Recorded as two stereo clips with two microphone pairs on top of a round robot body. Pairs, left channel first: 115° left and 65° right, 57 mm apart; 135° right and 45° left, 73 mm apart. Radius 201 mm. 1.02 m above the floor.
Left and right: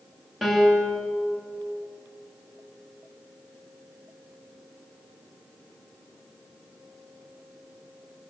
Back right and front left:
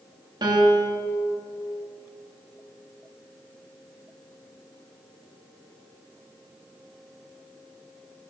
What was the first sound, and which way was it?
A piano, 25° left.